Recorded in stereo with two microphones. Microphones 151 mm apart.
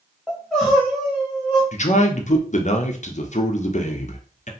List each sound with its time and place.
0.3 s crying: centre (ahead or behind), 1.3 m
1.7 s a man speaking: 55° left (ahead or behind), 0.6 m